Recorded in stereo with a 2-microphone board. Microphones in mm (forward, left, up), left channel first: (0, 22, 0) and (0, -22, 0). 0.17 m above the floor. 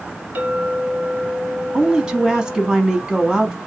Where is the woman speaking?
20° right (ahead or behind), 1.0 m.